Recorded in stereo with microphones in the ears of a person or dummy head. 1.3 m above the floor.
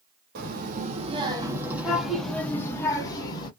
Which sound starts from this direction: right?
A child speaking, at 0.3 s.